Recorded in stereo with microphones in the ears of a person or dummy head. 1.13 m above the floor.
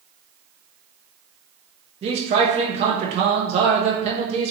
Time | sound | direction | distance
2.0 | a man speaking | 30° right (ahead or behind) | 0.7 m